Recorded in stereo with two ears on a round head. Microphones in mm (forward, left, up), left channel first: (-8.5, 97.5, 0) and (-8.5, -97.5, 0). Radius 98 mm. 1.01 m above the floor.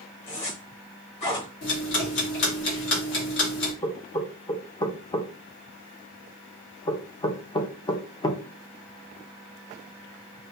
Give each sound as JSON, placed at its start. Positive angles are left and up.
{"t": 0.3, "sound": "a zipper", "side_deg": 30, "distance_m": 2.0}
{"t": 1.6, "sound": "ticking", "side_deg": 60, "distance_m": 1.8}
{"t": 3.8, "sound": "knocking", "side_deg": 20, "distance_m": 0.6}